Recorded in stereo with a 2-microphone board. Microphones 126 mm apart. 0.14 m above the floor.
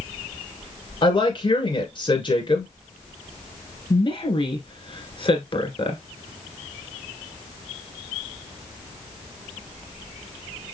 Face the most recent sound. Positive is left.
turn(degrees=45)  # may be behind; listen again after turning